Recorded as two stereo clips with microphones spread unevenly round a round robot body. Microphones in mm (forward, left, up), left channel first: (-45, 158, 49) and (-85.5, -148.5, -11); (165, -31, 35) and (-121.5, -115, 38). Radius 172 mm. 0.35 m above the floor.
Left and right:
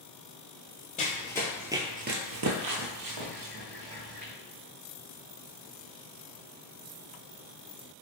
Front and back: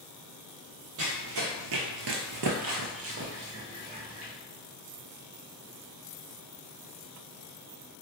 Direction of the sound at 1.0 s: 145° left.